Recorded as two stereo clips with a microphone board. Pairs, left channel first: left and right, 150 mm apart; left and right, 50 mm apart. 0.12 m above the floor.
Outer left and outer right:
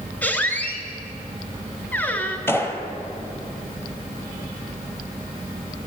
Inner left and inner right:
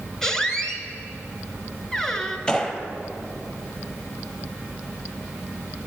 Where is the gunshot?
15° left (ahead or behind), 1.0 m.